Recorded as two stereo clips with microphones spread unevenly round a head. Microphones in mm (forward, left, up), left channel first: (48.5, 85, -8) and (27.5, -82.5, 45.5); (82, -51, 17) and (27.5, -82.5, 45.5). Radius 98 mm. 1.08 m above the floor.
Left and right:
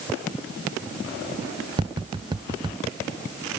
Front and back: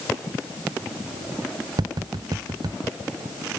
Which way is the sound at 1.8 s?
175° right.